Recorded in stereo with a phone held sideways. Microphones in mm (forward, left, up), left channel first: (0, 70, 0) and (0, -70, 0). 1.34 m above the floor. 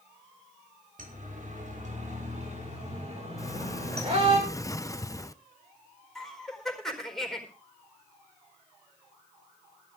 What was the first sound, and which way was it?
A siren, 70° right (ahead or behind).